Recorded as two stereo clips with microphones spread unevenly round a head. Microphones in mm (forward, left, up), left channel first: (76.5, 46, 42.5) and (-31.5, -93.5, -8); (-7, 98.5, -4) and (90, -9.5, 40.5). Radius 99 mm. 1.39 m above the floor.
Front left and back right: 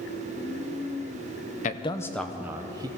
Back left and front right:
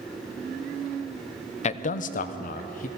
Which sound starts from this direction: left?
A man speaking, at 1.6 s.